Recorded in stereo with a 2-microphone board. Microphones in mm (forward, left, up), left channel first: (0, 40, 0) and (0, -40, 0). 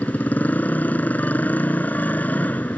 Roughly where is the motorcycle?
Left.